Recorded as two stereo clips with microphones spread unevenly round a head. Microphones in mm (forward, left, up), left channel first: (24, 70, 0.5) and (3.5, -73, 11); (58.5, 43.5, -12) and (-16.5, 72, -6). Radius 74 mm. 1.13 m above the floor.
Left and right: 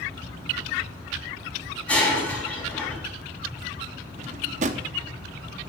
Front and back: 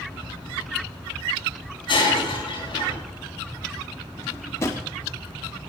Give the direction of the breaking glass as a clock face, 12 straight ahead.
12 o'clock.